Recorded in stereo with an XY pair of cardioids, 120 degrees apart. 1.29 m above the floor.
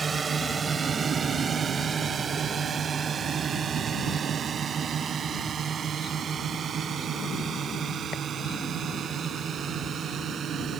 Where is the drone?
30° right; by 10.8 s 50° right.